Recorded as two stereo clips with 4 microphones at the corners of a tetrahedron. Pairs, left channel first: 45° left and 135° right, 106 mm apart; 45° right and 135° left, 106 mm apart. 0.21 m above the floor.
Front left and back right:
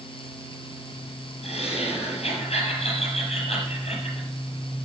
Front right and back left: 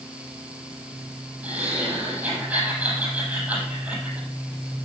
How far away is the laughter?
About 5 m.